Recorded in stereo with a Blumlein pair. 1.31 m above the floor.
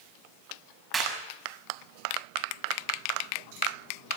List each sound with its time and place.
0.9 s a clap: 15° right, 6.5 m